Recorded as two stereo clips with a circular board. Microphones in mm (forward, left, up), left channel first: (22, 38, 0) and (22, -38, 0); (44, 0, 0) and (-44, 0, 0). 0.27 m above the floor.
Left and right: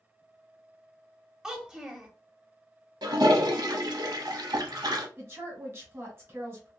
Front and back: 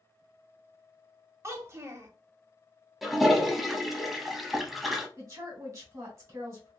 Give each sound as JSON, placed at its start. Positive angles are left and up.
{"t": 1.4, "sound": "a child speaking", "azimuth_deg": -160, "distance_m": 0.5}
{"t": 3.0, "sound": "a toilet flushing", "azimuth_deg": -90, "distance_m": 0.6}
{"t": 5.2, "sound": "a woman speaking", "azimuth_deg": -135, "distance_m": 1.7}